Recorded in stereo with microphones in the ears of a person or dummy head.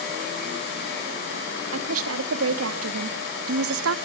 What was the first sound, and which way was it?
A woman speaking, 85° right.